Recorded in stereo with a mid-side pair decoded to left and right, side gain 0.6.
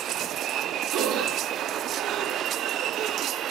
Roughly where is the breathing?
Right.